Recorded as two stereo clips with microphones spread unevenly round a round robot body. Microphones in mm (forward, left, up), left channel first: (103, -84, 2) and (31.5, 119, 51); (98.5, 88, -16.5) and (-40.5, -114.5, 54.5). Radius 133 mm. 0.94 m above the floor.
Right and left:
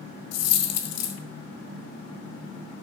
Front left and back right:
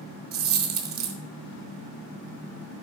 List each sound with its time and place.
0.3 s a dropped coin: 95° right, 1.1 m